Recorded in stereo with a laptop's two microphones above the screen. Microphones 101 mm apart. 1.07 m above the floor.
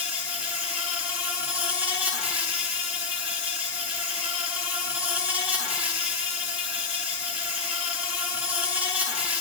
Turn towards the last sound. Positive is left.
turn(degrees=-15)  # may be behind; listen again after turning